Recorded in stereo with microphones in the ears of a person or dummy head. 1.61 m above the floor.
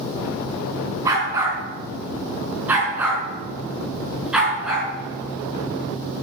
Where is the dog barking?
20° right (ahead or behind), 5.5 m; by 4.9 s 5° right (ahead or behind), 6.5 m.